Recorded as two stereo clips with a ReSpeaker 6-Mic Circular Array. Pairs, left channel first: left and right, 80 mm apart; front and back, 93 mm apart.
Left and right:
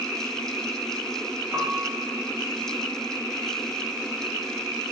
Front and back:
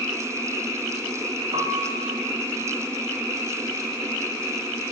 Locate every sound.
1.5 s a piano: 155° right, 1.6 m